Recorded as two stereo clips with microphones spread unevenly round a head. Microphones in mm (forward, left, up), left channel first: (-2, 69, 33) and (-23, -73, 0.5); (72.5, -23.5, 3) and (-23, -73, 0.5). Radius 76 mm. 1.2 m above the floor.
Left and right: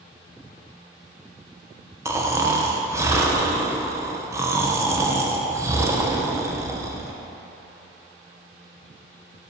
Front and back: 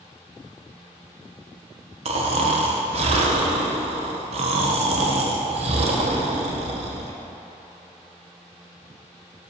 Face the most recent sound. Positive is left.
turn(degrees=-160)